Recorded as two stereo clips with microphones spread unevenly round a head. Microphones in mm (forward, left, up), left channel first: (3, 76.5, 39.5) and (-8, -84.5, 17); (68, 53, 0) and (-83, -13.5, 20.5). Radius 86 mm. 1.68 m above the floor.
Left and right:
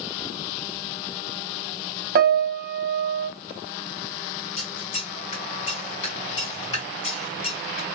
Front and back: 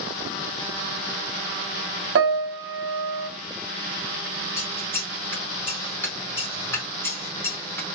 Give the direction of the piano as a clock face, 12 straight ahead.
4 o'clock.